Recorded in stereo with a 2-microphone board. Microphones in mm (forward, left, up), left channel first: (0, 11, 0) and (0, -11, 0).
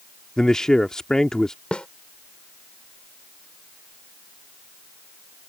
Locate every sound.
0.4 s a man speaking: 30° left (ahead or behind)
1.7 s a snare drum: 55° left (ahead or behind)